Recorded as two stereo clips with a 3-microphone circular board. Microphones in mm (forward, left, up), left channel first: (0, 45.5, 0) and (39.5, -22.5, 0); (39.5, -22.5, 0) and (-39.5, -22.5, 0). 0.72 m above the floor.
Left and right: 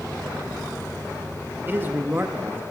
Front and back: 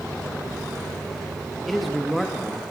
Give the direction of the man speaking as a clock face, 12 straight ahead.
3 o'clock.